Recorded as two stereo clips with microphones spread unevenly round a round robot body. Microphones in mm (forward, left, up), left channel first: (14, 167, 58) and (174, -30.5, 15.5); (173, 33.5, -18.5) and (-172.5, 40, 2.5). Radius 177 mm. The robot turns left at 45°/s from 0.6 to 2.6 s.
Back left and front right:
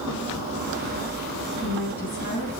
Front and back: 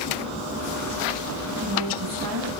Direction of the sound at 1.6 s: 140° right.